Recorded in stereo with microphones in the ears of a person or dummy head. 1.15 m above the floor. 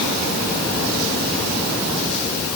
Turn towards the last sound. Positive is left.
No sound to turn to.